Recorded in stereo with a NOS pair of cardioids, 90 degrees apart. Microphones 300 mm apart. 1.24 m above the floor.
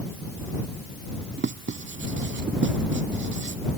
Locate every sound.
1.4 s writing: 40° right